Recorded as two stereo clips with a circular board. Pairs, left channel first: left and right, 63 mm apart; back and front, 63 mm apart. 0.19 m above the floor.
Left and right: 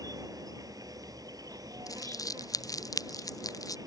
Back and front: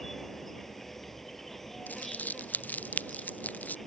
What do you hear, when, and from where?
0.0 s an insect: 95° right
1.9 s crumpling: 115° left